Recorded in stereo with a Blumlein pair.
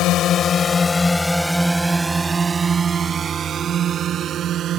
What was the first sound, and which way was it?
A drone, 35° left.